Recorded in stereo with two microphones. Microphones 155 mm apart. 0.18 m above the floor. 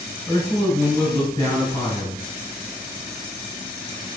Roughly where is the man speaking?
Left.